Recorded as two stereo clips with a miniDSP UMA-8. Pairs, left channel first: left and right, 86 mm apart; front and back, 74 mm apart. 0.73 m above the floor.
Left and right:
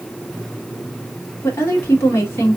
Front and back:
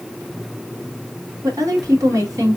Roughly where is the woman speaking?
Behind left.